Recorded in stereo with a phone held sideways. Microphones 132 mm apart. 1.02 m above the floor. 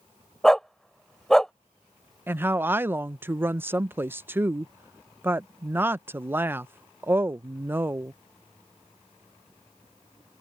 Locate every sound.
0.4 s a dog barking: 5° left (ahead or behind)
2.3 s a woman speaking: 15° right (ahead or behind)